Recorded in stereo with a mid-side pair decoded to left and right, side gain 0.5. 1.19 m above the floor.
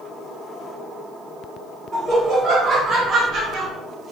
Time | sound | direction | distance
1.9 | laughter | 30° right | 1.6 m